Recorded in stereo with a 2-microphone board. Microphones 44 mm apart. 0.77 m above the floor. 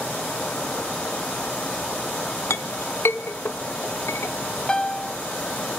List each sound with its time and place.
2.5 s a clink: 80° left, 0.9 m
4.7 s a piano: 20° left (ahead or behind), 0.9 m